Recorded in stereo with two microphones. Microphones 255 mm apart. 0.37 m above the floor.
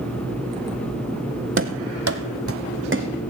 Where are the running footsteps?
50° right (ahead or behind), 0.9 m; by 3.1 s 45° right (ahead or behind), 1.7 m.